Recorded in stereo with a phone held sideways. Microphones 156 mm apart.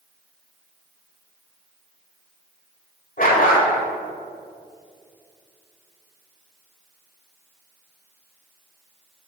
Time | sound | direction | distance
3.2 | a dog barking | 60° left (ahead or behind) | 1.5 m